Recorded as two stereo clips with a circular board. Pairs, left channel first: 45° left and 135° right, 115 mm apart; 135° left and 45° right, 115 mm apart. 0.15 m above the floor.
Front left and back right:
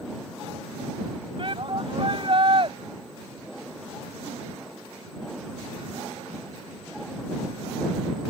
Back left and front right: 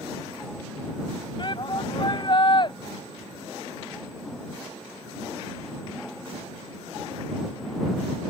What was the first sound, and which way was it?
A shout, straight behind.